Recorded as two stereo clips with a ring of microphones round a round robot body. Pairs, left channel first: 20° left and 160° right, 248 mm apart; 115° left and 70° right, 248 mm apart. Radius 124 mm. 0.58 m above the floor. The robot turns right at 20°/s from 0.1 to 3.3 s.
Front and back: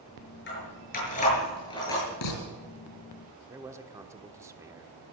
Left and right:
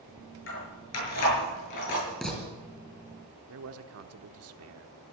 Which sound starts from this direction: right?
A man speaking, at 3.5 s.